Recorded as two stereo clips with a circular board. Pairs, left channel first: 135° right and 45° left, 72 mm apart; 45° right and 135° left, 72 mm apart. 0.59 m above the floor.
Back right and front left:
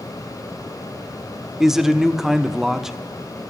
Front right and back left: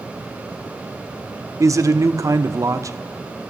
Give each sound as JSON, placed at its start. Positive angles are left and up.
{"t": 1.6, "sound": "a man speaking", "azimuth_deg": 130, "distance_m": 0.8}